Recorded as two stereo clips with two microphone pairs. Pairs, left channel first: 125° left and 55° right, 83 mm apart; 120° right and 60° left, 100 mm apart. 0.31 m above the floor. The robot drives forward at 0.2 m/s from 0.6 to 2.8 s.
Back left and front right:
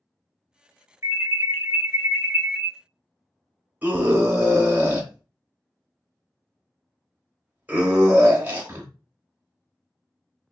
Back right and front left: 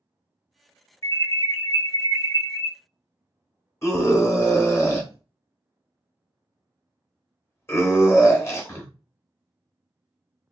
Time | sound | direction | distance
1.0 | an alarm | 95° right | 0.8 m
3.8 | a scream | 100° right | 0.9 m